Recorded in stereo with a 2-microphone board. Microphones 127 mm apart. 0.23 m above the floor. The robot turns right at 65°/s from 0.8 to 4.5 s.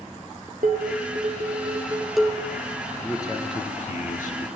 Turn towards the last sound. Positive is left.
turn(degrees=110)